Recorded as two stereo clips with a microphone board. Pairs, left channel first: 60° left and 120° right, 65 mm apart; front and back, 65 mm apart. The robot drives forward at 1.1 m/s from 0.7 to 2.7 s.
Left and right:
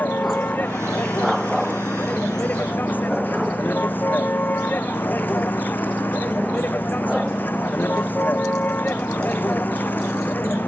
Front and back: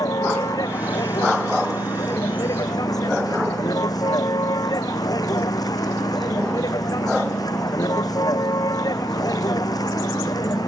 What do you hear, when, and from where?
0.0 s a vehicle: straight ahead